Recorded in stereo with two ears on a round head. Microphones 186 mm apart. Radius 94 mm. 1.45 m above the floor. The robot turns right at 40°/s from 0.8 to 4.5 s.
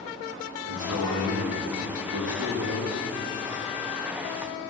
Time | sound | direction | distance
0.7 | a man speaking | 95° right | 2 m